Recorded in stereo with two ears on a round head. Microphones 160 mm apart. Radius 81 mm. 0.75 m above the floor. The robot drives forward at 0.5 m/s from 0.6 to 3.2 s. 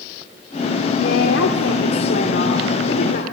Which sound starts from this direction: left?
A woman speaking, at 1.0 s.